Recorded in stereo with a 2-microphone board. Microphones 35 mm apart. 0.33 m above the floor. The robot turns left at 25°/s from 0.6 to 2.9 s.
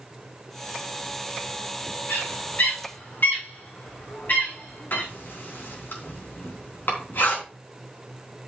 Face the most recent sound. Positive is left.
turn(degrees=70)  # may be behind; listen again after turning